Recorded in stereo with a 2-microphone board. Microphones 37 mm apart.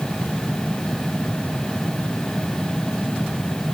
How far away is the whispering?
I don't hear whispering.